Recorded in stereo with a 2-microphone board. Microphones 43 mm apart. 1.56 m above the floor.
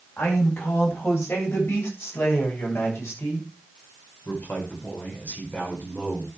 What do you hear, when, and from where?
0.2 s a man speaking: 85° left, 9 m; by 6.3 s 35° left (ahead or behind), 5.5 m